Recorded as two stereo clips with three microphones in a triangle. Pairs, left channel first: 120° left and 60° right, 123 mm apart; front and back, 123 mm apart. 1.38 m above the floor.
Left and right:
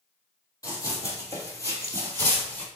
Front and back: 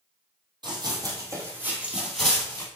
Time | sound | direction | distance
0.6 | running footsteps | 165° left | 1.8 m